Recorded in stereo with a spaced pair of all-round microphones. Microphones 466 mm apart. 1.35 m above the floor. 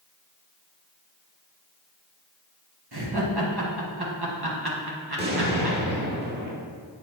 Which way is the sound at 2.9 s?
55° right (ahead or behind).